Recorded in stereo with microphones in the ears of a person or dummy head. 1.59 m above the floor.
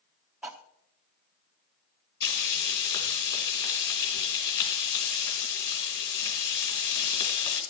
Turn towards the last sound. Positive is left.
turn(degrees=25)  # may be behind; listen again after turning